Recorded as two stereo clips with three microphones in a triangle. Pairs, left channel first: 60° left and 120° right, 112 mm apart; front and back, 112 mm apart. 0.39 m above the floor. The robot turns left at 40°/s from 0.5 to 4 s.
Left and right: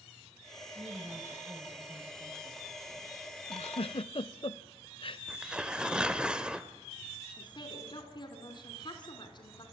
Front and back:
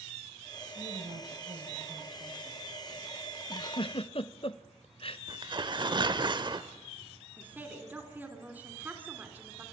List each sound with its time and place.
0.8 s a woman speaking: 160° right, 2 m; by 2.6 s 125° left, 2 m
3.5 s a giggle: 45° left, 0.6 m; by 5.2 s 25° left, 0.6 m
5.3 s tearing paper: 160° left, 1.0 m
7.4 s a woman speaking: 105° left, 3.5 m